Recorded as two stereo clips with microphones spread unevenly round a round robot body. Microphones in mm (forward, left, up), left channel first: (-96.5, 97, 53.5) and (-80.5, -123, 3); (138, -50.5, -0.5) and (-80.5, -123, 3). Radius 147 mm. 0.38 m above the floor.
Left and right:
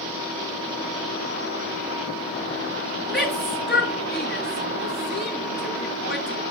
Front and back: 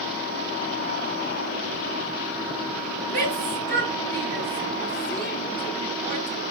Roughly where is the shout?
Behind left.